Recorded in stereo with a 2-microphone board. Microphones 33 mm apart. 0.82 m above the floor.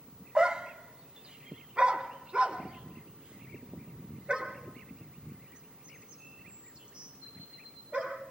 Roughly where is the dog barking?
Right.